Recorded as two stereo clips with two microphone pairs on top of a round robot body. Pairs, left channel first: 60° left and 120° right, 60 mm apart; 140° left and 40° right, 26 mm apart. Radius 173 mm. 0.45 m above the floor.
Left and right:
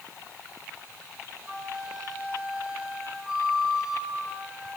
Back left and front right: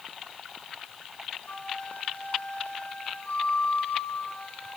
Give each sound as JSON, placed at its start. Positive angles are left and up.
{"t": 1.5, "sound": "a flute", "azimuth_deg": 165, "distance_m": 5.0}